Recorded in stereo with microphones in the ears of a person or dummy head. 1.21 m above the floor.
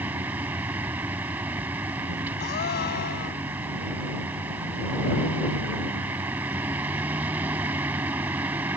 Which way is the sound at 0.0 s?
5° right (ahead or behind).